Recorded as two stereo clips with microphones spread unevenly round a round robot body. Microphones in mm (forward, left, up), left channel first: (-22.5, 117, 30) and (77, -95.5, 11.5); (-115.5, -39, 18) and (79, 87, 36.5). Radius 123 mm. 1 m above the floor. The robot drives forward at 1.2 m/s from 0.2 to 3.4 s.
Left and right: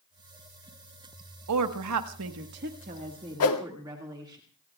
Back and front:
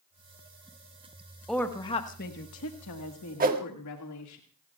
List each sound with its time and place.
1.5 s a woman speaking: 60° right, 1.5 m; by 4.4 s 140° right, 2.0 m
3.4 s a whoosh: 90° left, 1.7 m